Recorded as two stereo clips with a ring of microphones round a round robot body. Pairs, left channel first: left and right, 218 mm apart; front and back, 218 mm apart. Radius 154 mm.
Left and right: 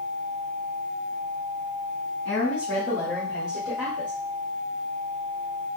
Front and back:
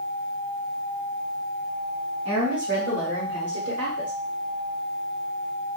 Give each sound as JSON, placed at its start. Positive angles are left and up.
{"t": 2.2, "sound": "a woman speaking", "azimuth_deg": 130, "distance_m": 1.2}